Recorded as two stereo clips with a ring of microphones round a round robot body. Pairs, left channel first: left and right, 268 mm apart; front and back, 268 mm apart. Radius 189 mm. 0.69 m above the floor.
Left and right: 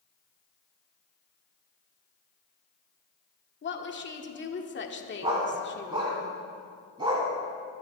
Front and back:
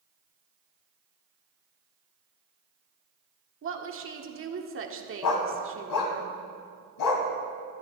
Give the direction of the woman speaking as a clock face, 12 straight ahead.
7 o'clock.